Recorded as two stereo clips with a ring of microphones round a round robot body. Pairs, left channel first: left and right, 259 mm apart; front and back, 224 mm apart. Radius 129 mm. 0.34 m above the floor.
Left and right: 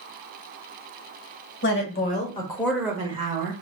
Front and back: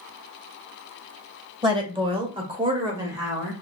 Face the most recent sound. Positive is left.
turn(degrees=-105)